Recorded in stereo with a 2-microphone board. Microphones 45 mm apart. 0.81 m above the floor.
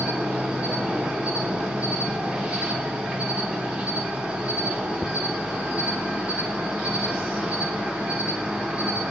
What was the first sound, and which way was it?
An insect, 20° right (ahead or behind).